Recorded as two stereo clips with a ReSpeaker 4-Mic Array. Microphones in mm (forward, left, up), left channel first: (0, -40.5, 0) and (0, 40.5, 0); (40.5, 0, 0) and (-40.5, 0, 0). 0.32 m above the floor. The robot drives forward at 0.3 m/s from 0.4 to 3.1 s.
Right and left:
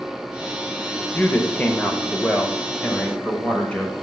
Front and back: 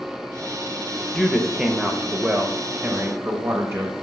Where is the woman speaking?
85° right, 0.8 m; by 3.9 s 155° right, 1.0 m.